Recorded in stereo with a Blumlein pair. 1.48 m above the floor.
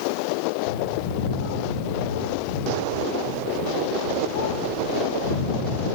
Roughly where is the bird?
Ahead left.